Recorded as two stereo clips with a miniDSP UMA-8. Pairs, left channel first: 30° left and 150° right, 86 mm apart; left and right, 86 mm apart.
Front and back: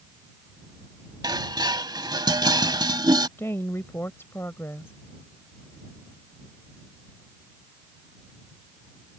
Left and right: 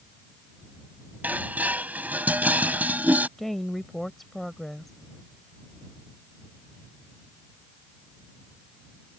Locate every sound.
1.2 s dishes clattering: 155° right
3.4 s a woman speaking: 5° left